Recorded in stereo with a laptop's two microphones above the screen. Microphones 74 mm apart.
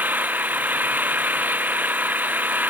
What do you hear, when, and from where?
0.0 s an engine running: 20° right (ahead or behind)